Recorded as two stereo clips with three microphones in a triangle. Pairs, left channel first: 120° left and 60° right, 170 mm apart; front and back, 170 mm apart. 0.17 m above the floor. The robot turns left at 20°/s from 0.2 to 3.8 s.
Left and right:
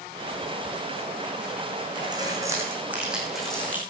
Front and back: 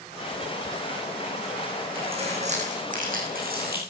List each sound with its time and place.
1.9 s keys jangling: 125° right, 6.5 m; by 3.8 s 160° right, 6.5 m